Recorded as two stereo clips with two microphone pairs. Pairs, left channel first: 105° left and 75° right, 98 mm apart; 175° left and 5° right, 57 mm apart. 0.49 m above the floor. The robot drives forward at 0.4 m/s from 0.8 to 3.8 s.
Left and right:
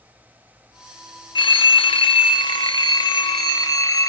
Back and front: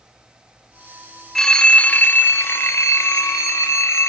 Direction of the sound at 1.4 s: 90° left.